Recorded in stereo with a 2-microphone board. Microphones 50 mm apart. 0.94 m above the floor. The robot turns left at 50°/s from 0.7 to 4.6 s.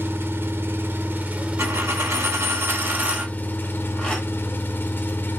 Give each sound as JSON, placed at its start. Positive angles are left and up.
{"t": 0.0, "sound": "an engine running", "azimuth_deg": -95, "distance_m": 0.8}
{"t": 1.6, "sound": "a dropped coin", "azimuth_deg": -70, "distance_m": 1.4}